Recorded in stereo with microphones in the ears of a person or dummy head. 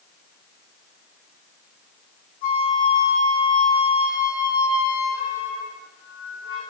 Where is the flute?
30° left (ahead or behind), 1.8 m.